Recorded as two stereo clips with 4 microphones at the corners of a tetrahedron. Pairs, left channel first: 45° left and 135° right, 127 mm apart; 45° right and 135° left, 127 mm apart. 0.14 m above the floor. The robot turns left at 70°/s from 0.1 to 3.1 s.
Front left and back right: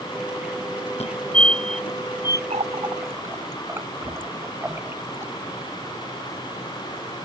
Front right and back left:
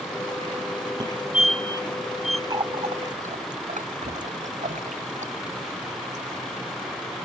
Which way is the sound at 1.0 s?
75° left.